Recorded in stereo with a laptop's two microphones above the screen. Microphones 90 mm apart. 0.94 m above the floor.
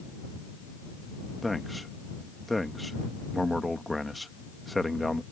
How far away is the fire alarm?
I don't hear a fire alarm.